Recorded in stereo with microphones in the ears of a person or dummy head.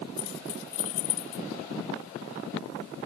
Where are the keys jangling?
75° left (ahead or behind).